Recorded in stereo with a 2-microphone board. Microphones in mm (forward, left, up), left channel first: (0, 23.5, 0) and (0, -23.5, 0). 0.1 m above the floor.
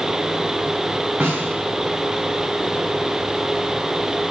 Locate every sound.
1.2 s a snare drum: 35° right (ahead or behind), 3 m